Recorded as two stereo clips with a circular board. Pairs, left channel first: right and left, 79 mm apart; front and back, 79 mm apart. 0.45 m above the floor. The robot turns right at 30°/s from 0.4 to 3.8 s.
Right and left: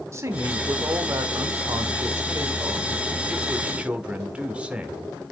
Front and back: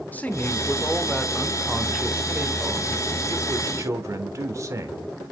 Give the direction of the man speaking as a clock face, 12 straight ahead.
10 o'clock.